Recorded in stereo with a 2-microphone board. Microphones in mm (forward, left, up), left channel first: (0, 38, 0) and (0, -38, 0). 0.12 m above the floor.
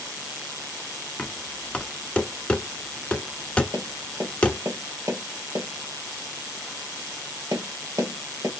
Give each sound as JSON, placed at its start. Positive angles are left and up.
{"t": 1.2, "sound": "knocking", "side_deg": 15, "distance_m": 0.9}
{"t": 3.7, "sound": "tapping", "side_deg": -50, "distance_m": 1.9}